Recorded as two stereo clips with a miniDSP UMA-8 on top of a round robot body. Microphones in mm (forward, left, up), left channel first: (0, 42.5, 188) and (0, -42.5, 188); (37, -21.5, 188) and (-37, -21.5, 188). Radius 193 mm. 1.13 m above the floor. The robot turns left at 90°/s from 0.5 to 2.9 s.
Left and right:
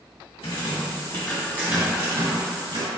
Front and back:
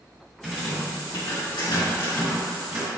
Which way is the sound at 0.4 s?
80° left.